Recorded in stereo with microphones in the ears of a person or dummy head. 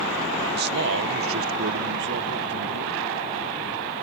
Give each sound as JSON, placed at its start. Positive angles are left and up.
{"t": 0.5, "sound": "a man speaking", "side_deg": -55}